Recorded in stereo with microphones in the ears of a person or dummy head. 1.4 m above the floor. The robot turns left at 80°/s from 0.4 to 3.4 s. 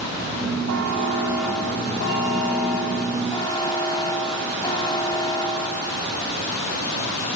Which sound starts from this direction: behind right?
A buzzer, at 0.7 s.